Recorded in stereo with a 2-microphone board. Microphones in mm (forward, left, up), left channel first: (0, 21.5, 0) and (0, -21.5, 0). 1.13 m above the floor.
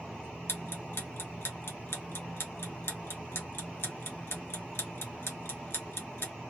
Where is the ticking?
65° left (ahead or behind), 0.9 m.